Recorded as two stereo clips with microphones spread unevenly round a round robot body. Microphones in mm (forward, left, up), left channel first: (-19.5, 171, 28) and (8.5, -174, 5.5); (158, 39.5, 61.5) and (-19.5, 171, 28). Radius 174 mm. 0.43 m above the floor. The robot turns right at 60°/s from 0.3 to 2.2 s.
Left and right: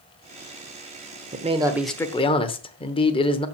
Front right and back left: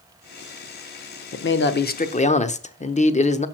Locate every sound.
1.3 s a man speaking: 30° right, 1.0 m; by 3.5 s 20° left, 1.0 m